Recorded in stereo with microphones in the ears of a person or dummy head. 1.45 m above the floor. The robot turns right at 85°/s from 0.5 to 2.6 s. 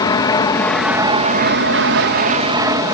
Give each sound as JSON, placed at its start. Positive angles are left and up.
{"t": 0.0, "sound": "an aircraft", "azimuth_deg": 165}